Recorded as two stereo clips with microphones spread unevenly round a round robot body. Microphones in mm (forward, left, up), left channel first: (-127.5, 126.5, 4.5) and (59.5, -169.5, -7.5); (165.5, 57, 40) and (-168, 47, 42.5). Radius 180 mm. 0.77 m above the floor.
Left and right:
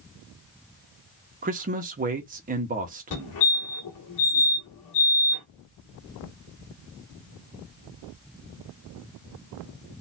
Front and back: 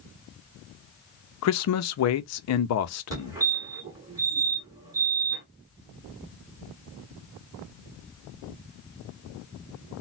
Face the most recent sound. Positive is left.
turn(degrees=105)